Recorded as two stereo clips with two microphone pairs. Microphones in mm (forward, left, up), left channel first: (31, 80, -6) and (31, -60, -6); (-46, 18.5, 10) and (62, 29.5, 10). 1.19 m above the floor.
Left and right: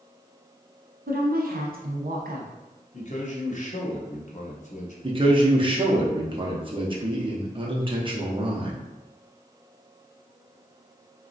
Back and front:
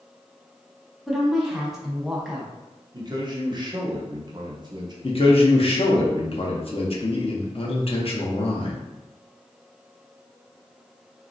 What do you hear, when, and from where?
1.1 s a woman speaking: 80° right, 0.8 m
2.9 s a man speaking: 55° left, 0.8 m
5.0 s a man speaking: 145° right, 0.7 m